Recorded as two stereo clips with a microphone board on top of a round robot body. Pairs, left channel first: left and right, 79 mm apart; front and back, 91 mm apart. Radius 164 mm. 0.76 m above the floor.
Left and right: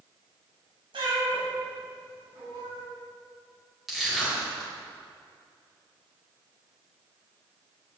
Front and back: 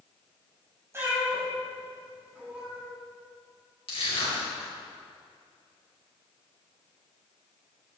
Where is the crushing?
Straight ahead, 4 m.